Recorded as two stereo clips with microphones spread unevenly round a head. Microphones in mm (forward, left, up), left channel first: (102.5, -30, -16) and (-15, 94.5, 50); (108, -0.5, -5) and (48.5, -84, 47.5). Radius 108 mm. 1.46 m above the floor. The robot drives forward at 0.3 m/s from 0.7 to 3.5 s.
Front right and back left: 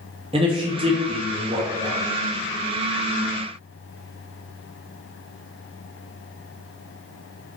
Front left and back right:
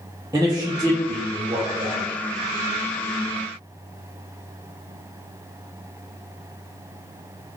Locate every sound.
0.3 s a man speaking: 175° right, 0.5 m